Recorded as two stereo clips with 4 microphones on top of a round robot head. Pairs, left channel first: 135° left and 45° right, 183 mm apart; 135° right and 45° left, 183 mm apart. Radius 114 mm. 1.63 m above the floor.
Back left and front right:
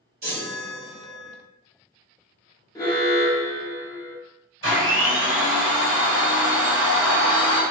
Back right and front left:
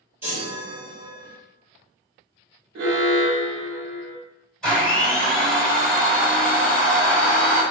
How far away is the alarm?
About 0.7 m.